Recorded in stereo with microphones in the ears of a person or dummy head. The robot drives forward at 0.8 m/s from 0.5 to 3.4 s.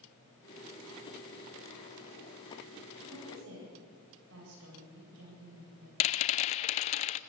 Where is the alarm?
No alarm in this recording.